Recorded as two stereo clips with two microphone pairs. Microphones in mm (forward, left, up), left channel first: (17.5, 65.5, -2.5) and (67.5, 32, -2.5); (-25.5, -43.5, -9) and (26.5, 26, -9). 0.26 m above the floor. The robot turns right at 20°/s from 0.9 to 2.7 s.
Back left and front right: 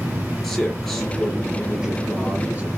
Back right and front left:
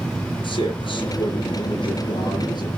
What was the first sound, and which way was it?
A man speaking, 130° right.